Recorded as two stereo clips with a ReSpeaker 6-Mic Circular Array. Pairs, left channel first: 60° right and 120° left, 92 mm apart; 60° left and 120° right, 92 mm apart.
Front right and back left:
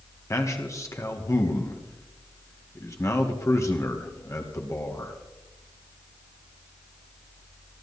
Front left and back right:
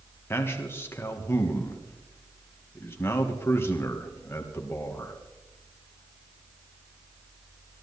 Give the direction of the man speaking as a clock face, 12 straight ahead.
12 o'clock.